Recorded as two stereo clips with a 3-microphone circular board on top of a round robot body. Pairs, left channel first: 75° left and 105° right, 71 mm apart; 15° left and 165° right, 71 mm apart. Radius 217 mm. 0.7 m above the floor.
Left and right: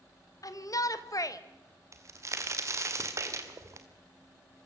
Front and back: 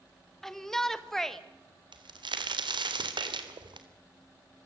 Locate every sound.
0.4 s a shout: 100° left, 1.9 m
1.9 s a crack: 155° right, 2 m